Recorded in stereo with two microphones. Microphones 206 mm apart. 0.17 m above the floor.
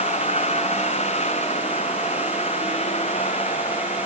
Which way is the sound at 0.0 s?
35° left (ahead or behind).